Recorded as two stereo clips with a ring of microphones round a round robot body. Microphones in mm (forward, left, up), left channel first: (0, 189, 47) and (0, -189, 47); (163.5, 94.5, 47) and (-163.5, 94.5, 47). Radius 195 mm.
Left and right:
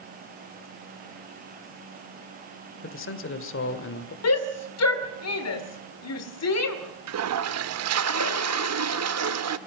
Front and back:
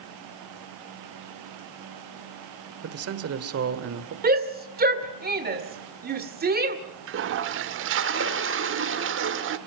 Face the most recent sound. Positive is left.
turn(degrees=-130)